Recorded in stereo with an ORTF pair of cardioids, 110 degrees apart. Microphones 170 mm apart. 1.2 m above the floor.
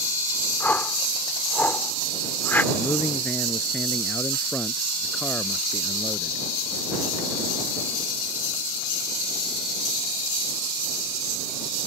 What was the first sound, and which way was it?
A whoosh, 10° left.